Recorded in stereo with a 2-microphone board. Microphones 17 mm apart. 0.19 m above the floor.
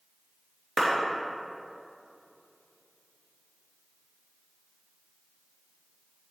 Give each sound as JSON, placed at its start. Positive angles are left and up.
{"t": 0.8, "sound": "a clap", "side_deg": -10, "distance_m": 3.0}